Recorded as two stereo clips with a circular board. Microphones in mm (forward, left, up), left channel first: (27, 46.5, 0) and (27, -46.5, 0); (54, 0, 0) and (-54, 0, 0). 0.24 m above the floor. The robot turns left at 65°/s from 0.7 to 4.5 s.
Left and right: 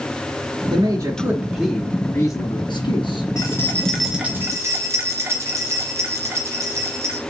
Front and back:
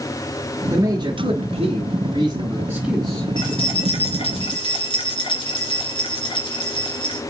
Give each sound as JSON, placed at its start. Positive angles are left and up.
{"t": 0.7, "sound": "a man speaking", "azimuth_deg": -125, "distance_m": 2.5}
{"t": 3.4, "sound": "keys jangling", "azimuth_deg": 40, "distance_m": 2.5}